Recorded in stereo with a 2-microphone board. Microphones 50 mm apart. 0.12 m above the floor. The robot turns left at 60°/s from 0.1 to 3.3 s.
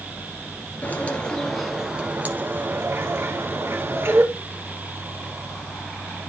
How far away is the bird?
About 1.8 m.